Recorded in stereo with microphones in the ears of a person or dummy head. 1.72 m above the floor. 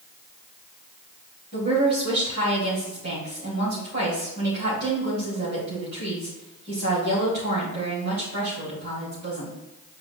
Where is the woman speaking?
60° right (ahead or behind), 3.5 m.